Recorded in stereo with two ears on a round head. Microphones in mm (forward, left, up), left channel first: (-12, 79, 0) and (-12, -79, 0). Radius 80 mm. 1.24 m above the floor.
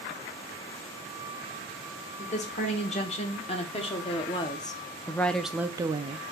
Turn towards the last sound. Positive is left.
turn(degrees=-35)  # may be behind; listen again after turning